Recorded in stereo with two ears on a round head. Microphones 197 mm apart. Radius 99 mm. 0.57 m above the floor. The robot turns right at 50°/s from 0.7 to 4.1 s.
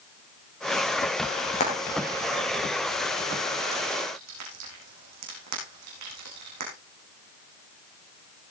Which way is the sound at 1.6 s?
35° left (ahead or behind).